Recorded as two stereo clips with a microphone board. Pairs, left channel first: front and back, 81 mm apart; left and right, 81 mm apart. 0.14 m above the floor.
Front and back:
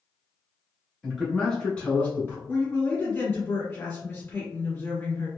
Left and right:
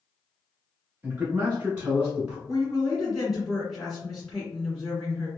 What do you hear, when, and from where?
1.0 s a man speaking: 95° right, 1.4 m; by 2.4 s 25° right, 1.4 m
2.5 s a woman speaking: 5° right, 1.6 m